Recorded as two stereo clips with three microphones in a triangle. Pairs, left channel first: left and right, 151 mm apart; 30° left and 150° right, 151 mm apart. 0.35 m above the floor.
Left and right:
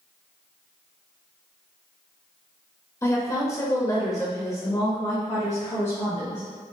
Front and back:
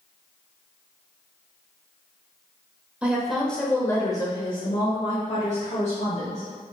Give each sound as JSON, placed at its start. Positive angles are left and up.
{"t": 3.0, "sound": "a woman speaking", "azimuth_deg": 140, "distance_m": 1.0}